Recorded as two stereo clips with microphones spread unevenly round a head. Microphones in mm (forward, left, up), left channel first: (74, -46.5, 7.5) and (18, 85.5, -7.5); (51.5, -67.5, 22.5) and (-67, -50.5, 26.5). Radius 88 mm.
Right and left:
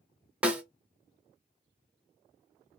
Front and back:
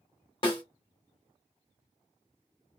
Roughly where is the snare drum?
Ahead left.